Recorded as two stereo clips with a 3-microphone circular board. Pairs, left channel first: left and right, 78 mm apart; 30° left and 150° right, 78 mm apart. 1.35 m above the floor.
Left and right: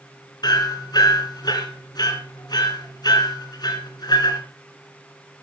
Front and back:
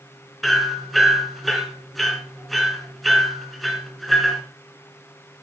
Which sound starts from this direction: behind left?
Hammering, at 0.4 s.